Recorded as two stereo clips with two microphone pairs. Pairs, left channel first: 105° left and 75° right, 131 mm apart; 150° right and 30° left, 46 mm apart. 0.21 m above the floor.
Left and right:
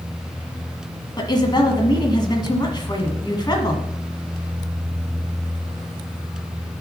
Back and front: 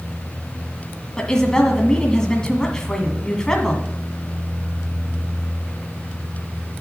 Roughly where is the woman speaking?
Behind left.